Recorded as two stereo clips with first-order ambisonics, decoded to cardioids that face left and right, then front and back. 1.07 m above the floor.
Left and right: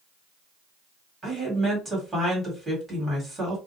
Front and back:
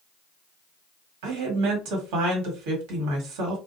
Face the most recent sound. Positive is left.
turn(degrees=-170)